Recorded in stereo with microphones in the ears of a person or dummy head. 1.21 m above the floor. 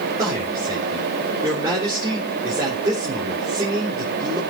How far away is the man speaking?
About 3.5 m.